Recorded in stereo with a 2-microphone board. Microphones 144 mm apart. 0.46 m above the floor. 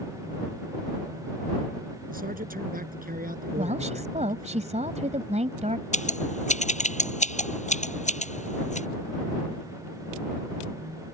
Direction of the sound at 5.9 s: 55° left (ahead or behind).